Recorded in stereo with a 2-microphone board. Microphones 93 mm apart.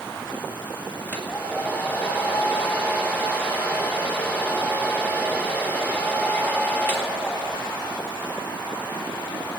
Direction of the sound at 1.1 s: 20° left (ahead or behind).